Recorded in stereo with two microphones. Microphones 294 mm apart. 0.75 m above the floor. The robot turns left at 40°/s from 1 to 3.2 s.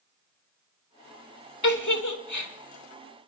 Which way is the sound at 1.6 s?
75° left (ahead or behind).